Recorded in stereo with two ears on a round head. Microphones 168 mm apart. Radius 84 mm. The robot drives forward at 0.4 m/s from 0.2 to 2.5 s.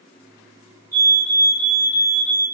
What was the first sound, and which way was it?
A fire alarm, 15° left (ahead or behind).